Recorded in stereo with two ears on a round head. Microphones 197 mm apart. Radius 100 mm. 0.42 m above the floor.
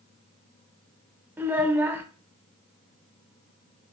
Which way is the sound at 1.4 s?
10° right (ahead or behind).